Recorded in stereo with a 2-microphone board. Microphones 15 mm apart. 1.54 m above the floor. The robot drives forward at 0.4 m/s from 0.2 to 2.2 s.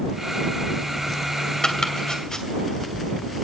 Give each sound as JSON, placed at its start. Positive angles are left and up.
{"t": 1.6, "sound": "chopping", "side_deg": 65, "distance_m": 2.5}